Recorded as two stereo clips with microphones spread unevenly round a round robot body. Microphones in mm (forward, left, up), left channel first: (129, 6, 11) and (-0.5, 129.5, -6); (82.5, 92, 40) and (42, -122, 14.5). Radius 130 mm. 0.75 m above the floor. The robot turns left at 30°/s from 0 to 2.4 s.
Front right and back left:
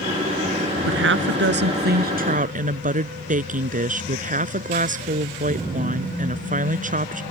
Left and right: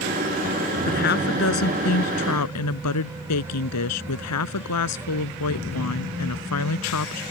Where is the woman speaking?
140° left; by 7.2 s 95° left.